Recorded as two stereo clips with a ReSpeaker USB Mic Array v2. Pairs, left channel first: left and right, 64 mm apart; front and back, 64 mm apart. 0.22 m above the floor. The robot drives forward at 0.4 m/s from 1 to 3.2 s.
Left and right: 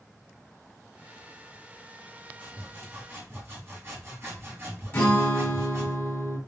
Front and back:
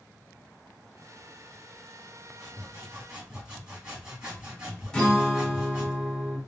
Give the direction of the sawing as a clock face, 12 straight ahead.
3 o'clock.